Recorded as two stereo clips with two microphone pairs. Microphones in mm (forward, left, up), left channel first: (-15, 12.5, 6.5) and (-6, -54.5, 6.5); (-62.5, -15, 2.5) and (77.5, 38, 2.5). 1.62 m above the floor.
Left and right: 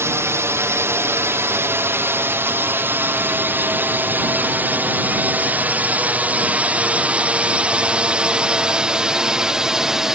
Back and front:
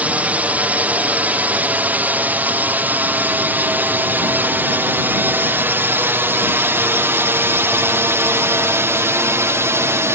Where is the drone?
55° right; by 10.1 s 15° right.